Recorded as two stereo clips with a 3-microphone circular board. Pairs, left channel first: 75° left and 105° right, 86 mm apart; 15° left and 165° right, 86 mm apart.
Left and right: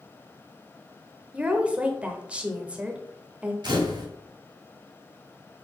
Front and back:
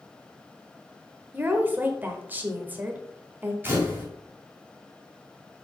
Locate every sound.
1.3 s a woman speaking: 155° right, 1.0 m
3.6 s a camera shutter: 105° right, 2.5 m